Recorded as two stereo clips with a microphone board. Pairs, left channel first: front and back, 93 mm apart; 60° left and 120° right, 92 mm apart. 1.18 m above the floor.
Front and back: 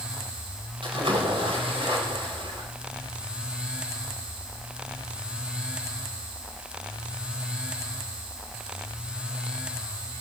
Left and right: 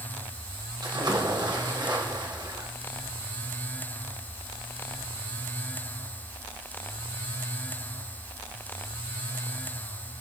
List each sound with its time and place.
0.8 s a splash: 160° right, 4 m